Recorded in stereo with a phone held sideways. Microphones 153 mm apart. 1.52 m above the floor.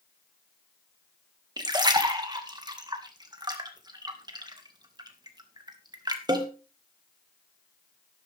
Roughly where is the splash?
Right.